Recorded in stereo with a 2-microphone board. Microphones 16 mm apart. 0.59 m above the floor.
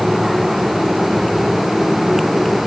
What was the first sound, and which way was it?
Only background noise.